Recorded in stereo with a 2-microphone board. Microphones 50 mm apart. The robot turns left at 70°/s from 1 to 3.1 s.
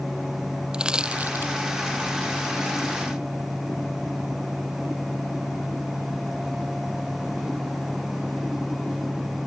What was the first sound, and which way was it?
Crushing, 15° right (ahead or behind).